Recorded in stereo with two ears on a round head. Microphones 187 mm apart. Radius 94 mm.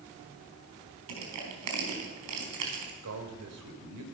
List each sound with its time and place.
1.1 s crushing: 80° right, 4 m
3.0 s a man speaking: 80° right, 3.5 m